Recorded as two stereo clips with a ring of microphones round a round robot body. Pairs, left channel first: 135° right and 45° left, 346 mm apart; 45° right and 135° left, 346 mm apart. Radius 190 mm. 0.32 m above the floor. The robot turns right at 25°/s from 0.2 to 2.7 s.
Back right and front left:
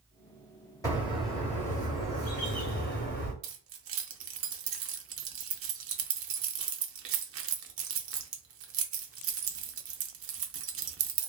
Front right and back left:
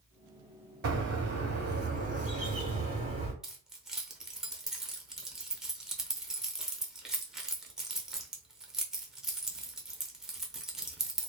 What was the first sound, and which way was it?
A bird, 150° left.